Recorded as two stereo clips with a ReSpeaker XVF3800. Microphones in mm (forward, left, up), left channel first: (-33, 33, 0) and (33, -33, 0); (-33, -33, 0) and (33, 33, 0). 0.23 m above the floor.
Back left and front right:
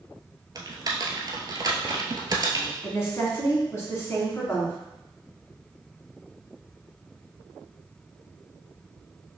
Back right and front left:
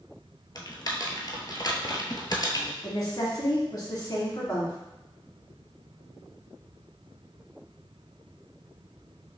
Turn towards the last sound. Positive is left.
turn(degrees=-170)